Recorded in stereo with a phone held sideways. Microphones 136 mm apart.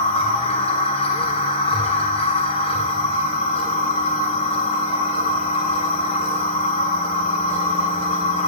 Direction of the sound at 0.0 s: 45° left (ahead or behind).